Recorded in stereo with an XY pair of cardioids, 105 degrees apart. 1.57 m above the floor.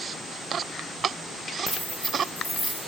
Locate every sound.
1.7 s keys jangling: 30° right, 1.5 m; by 2.8 s 5° right, 2.0 m